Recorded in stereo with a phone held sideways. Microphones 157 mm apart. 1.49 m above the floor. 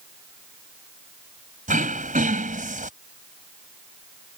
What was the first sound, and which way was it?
Throat clearing, 55° right (ahead or behind).